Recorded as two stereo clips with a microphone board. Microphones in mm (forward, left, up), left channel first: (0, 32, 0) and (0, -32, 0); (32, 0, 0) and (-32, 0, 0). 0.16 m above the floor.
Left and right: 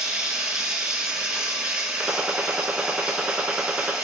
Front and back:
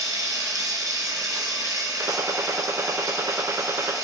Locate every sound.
0.0 s running water: 165° right, 1.0 m
2.0 s a gunshot: 155° right, 0.6 m